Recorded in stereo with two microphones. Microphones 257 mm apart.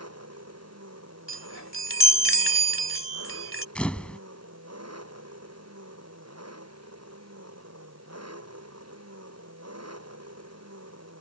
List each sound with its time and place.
0.0 s an engine running: 65° right (ahead or behind)
1.3 s a chime: 50° left (ahead or behind)
3.8 s a camera shutter: 5° left (ahead or behind)